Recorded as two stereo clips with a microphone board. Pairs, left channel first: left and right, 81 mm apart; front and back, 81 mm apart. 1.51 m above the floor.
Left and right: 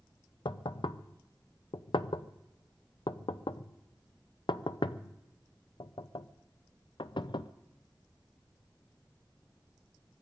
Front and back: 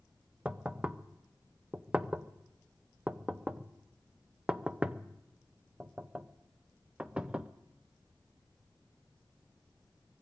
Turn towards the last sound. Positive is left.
turn(degrees=100)